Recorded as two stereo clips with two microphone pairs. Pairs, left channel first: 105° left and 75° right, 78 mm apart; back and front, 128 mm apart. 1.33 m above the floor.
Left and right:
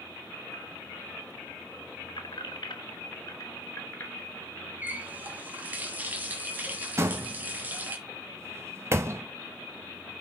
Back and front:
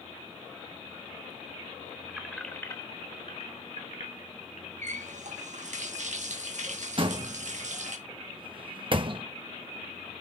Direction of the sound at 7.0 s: 30° right.